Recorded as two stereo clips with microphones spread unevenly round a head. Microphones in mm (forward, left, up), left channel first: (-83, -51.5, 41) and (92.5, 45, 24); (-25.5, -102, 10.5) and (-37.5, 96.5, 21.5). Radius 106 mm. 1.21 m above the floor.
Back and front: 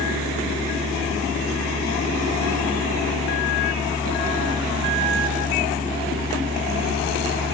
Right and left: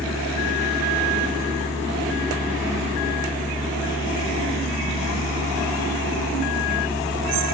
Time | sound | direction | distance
0.0 | a fan | 45° left | ?